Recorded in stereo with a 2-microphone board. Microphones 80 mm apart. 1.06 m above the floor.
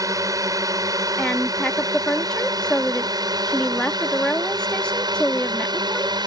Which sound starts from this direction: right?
A drone, at 0.0 s.